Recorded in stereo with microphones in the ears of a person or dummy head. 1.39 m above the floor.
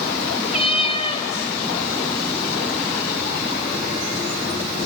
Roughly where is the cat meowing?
Left.